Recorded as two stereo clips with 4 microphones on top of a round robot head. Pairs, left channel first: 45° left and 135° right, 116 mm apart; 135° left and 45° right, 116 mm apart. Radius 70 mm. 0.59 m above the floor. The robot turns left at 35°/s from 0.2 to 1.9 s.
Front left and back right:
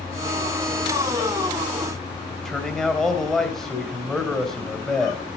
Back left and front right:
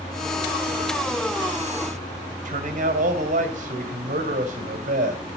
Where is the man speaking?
40° right, 3 m.